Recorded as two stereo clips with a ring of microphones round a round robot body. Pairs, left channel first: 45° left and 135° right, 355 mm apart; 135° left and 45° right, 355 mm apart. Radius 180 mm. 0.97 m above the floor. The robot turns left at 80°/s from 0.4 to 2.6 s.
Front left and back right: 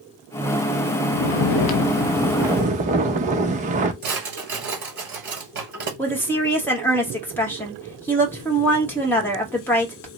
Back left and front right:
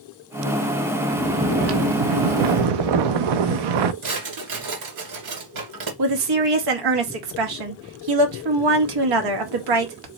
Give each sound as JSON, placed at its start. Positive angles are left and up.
{"t": 1.1, "sound": "snoring", "azimuth_deg": 55, "distance_m": 0.5}
{"t": 4.0, "sound": "a drawer", "azimuth_deg": -75, "distance_m": 2.0}
{"t": 6.0, "sound": "a woman speaking", "azimuth_deg": -40, "distance_m": 1.3}